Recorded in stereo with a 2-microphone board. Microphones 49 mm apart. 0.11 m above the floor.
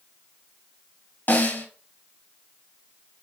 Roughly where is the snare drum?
Left.